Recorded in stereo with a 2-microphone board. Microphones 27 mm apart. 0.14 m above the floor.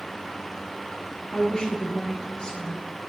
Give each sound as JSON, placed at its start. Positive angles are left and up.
{"t": 1.3, "sound": "a woman speaking", "side_deg": 35, "distance_m": 3.0}